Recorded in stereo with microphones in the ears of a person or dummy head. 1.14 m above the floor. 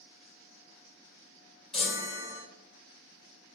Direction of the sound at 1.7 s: 5° right (ahead or behind).